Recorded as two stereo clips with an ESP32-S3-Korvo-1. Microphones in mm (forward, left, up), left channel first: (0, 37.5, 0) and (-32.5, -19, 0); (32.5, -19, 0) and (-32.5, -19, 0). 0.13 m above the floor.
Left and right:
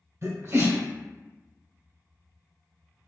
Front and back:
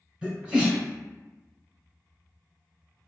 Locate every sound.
0.2 s a sneeze: 110° right, 1.7 m